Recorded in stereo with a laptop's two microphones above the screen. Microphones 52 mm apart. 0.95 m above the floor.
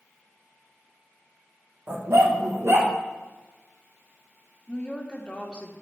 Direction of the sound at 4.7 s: 15° left (ahead or behind).